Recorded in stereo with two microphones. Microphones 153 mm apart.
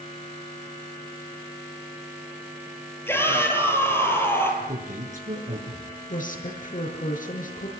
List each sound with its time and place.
3.1 s a shout: 15° left (ahead or behind), 7.5 m
4.6 s a man speaking: 60° right (ahead or behind), 5.5 m
6.1 s a woman speaking: 60° left (ahead or behind), 6.5 m